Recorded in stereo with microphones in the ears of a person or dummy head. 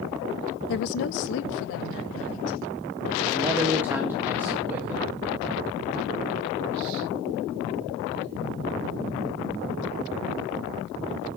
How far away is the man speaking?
About 1.8 m.